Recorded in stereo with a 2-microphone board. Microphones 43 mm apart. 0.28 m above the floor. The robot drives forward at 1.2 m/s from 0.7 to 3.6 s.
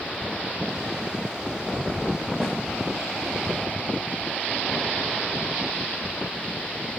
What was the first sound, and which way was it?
A snare drum, centre (ahead or behind).